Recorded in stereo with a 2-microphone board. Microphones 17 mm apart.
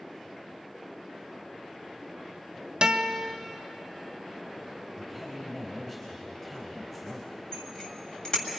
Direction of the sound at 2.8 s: 55° right (ahead or behind).